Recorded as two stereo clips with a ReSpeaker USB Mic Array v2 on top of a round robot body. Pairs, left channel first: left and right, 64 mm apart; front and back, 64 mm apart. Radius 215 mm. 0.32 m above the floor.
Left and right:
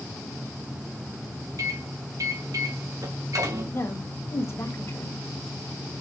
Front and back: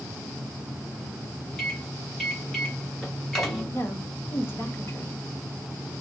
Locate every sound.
1.6 s a microwave: 85° right, 3 m
3.7 s a woman speaking: 50° left, 3 m